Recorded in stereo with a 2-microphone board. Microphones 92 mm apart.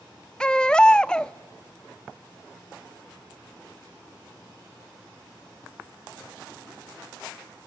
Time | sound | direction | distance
0.4 | a baby crying | 10° left (ahead or behind) | 0.6 m